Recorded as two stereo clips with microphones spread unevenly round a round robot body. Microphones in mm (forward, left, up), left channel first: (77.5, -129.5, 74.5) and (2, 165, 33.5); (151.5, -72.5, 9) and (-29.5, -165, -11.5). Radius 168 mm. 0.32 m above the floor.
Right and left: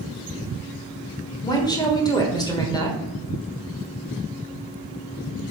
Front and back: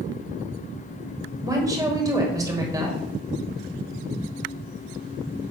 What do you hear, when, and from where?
1.4 s a woman speaking: 150° right, 1.4 m